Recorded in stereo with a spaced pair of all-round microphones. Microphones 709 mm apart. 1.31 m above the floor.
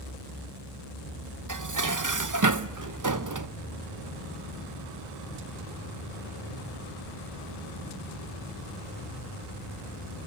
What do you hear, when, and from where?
1.5 s dishes clattering: 30° right (ahead or behind), 0.7 m